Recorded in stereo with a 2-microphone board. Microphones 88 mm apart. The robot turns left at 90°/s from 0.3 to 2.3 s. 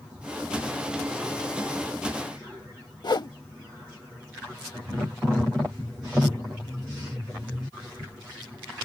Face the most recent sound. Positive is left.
turn(degrees=55)  # may be behind; listen again after turning